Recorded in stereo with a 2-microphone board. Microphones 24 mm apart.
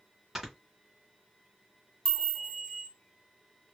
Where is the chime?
20° left (ahead or behind), 1.6 m.